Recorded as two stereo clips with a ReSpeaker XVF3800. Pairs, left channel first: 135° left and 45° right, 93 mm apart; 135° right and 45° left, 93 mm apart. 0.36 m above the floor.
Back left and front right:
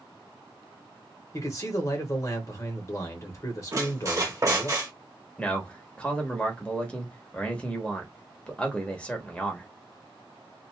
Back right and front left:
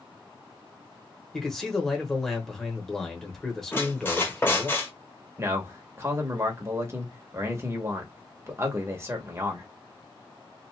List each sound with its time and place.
1.3 s a man speaking: 140° left, 1.0 m
3.7 s a squeak: 80° right, 1.1 m
5.4 s a man speaking: 65° left, 1.0 m